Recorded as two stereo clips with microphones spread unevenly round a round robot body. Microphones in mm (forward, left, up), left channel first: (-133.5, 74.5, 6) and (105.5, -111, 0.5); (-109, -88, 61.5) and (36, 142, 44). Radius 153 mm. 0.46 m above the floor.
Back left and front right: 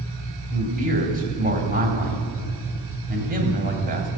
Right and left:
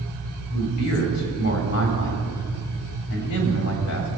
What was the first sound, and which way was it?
A man speaking, 100° right.